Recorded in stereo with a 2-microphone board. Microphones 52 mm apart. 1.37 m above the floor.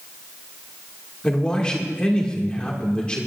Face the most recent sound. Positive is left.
turn(degrees=20)  # may be behind; listen again after turning